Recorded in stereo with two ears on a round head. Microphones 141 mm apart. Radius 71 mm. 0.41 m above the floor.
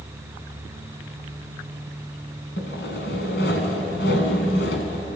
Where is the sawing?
75° left (ahead or behind), 2.5 m.